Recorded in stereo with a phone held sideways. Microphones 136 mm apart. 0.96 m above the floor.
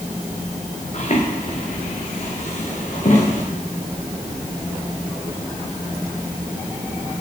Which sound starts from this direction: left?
Footsteps, at 0.9 s.